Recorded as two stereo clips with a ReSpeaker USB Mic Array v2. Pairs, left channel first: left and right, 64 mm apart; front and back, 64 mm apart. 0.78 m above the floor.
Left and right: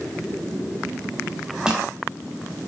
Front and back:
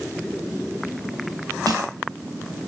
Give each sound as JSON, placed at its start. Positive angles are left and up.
{"t": 1.7, "sound": "crushing", "azimuth_deg": -165, "distance_m": 9.5}